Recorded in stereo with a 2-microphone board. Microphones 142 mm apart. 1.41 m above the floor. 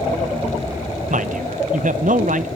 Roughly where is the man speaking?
Right.